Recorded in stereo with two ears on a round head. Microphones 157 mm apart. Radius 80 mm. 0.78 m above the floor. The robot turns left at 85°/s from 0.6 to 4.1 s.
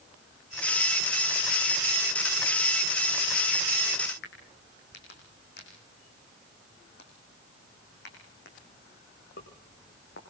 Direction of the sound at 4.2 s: 70° left (ahead or behind).